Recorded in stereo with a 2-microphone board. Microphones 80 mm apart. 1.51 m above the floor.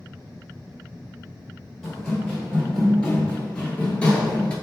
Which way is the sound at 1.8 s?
10° left (ahead or behind).